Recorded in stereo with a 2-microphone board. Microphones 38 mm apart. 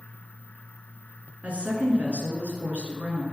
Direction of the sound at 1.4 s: 40° right (ahead or behind).